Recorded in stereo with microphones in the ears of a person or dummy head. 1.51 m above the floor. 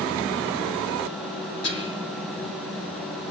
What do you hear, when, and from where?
1.6 s whispering: 75° left (ahead or behind), 7 m